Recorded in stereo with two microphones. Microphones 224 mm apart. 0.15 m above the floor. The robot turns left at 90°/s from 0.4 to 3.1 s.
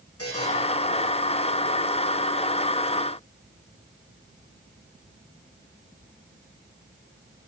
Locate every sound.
0.2 s a buzzer: 80° left, 8 m; by 0.5 s 75° left (ahead or behind), 8 m